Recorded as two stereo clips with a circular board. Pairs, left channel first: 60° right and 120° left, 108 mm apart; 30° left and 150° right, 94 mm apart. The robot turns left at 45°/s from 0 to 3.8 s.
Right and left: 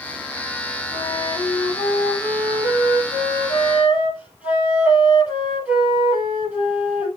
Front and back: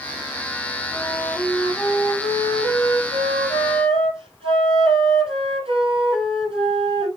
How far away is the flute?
About 6 m.